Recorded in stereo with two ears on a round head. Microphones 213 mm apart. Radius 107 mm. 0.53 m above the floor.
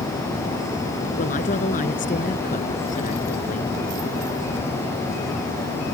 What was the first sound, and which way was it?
A woman speaking, 35° left (ahead or behind).